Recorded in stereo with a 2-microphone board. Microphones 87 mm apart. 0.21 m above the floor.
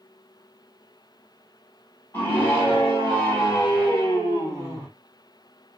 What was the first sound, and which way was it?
A scream, 25° left (ahead or behind).